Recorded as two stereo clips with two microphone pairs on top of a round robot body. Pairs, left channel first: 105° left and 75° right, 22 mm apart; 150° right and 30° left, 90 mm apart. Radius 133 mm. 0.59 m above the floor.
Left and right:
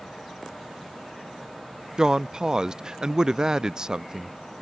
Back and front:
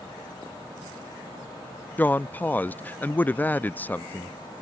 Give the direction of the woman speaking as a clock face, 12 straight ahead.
3 o'clock.